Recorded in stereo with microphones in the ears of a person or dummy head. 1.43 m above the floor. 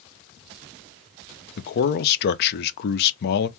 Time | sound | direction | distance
1.6 | a man speaking | 55° left (ahead or behind) | 0.7 m